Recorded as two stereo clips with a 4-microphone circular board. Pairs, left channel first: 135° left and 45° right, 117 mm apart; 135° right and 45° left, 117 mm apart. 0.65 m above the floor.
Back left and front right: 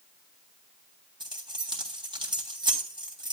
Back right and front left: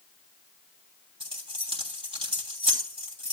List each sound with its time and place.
1.2 s keys jangling: 5° left, 3 m